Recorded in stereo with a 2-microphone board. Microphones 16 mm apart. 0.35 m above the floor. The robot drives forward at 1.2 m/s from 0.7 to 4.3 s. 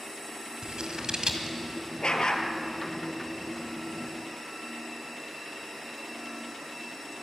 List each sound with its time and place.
0.6 s scissors: 60° right (ahead or behind), 2 m; by 1.6 s 50° right (ahead or behind), 2.5 m
2.0 s a dog barking: 75° left (ahead or behind), 1.9 m; by 2.5 s 60° left (ahead or behind), 2 m